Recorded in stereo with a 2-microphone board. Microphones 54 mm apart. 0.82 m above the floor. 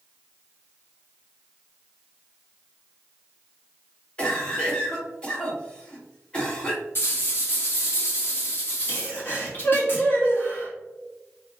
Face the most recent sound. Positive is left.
turn(degrees=40)  # may be behind; listen again after turning